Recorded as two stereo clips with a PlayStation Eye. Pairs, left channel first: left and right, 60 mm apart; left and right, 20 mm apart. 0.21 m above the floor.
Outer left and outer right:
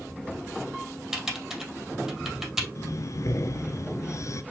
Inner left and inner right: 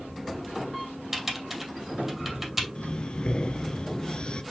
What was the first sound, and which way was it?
Typing on a keyboard, 5° right (ahead or behind).